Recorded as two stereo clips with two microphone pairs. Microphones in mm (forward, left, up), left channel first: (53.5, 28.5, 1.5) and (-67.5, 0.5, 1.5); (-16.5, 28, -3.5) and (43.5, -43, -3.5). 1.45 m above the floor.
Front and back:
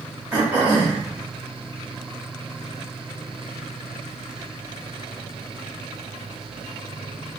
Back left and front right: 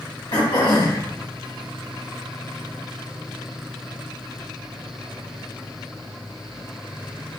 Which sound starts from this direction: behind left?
Throat clearing, at 0.3 s.